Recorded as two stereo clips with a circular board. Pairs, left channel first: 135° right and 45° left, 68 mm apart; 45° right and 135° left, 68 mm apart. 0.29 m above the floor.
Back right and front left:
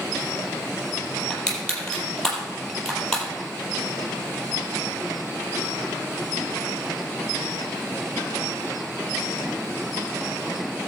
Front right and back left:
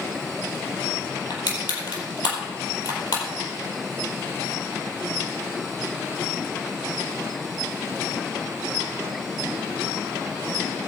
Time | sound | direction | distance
1.3 | crushing | 55° right | 4.5 m